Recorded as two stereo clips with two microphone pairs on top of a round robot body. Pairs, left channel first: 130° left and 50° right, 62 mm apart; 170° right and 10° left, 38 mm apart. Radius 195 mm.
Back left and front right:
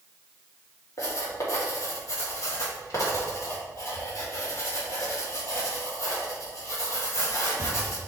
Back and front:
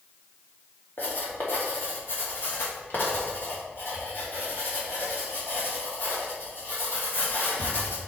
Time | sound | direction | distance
1.0 | writing | 165° left | 2.5 m